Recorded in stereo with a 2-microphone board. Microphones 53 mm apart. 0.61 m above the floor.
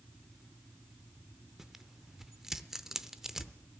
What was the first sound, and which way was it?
Tearing paper, 10° right (ahead or behind).